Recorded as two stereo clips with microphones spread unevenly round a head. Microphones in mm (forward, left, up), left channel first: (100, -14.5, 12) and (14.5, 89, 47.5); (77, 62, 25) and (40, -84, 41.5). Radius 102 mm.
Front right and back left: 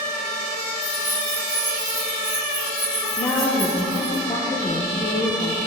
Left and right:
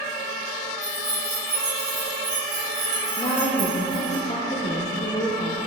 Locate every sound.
0.8 s keys jangling: 170° right, 3 m; by 4.2 s 130° right, 4 m
3.2 s a woman speaking: 20° left, 1.0 m